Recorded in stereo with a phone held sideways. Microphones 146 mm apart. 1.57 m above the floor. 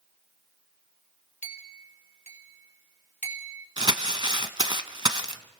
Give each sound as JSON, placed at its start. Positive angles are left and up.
{"t": 1.4, "sound": "a clink", "side_deg": 55, "distance_m": 2.0}
{"t": 3.8, "sound": "crumpling", "side_deg": -30, "distance_m": 0.9}